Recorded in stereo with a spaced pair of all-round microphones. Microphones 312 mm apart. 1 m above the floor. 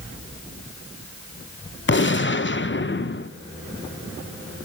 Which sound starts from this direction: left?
A gunshot, at 1.9 s.